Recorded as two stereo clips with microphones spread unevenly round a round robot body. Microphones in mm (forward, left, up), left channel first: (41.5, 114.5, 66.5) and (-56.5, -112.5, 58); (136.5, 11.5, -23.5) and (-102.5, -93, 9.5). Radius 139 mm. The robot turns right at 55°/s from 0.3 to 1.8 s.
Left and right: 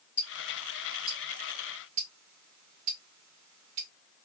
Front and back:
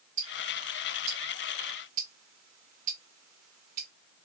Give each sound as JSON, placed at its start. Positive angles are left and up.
{"t": 0.2, "sound": "ticking", "azimuth_deg": 150, "distance_m": 1.9}